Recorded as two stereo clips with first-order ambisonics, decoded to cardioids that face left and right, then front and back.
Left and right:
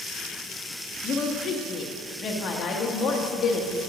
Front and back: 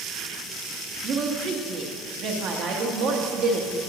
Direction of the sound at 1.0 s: 145° left.